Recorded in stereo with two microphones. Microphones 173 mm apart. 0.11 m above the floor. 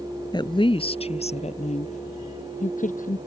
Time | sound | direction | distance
0.3 | a woman speaking | 25° left (ahead or behind) | ?